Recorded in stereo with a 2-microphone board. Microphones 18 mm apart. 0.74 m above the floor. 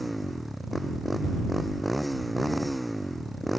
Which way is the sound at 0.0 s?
5° left (ahead or behind).